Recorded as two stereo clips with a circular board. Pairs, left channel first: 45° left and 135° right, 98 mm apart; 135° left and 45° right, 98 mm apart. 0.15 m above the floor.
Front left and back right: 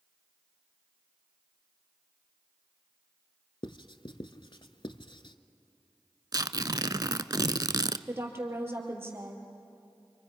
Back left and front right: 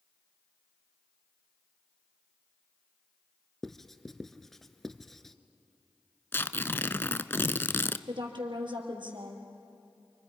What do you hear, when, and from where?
3.6 s writing: 50° left, 0.8 m
6.3 s tearing paper: 165° right, 0.5 m
8.1 s a woman speaking: 70° right, 4 m